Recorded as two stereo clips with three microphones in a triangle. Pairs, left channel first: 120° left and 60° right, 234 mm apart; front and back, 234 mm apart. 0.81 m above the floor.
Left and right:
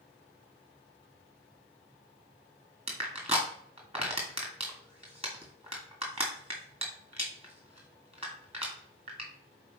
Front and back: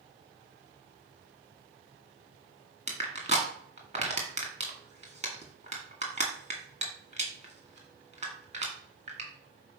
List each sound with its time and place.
2.9 s crushing: 120° right, 2.5 m